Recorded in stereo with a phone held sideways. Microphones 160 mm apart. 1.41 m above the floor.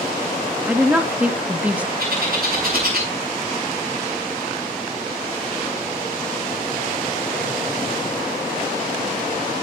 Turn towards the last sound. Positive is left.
turn(degrees=-75)  # may be behind; listen again after turning